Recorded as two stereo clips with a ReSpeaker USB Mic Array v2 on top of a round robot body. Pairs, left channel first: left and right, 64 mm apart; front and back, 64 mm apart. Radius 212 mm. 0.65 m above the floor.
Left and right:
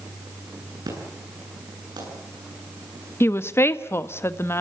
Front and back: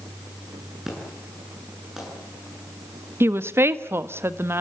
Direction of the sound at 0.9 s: 95° right.